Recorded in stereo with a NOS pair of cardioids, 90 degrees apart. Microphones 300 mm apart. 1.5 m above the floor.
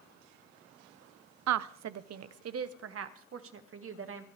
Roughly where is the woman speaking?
Right.